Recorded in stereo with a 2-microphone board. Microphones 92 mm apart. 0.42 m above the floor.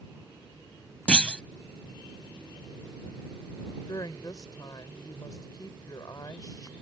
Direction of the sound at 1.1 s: 10° left (ahead or behind).